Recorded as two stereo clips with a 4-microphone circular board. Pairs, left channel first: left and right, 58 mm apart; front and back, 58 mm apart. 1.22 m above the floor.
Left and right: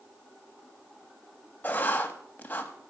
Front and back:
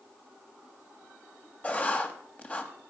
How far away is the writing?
About 1.2 m.